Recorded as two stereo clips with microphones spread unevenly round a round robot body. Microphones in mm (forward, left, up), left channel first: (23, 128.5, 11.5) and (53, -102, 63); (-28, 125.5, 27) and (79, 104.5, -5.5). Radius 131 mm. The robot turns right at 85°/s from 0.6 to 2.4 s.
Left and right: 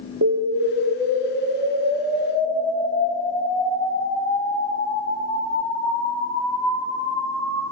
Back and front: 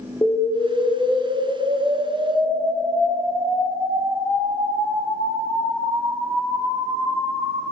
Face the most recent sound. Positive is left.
turn(degrees=40)